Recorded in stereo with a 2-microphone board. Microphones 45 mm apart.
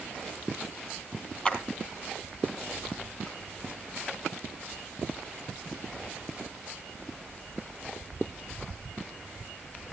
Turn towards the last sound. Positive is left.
turn(degrees=25)  # may be behind; listen again after turning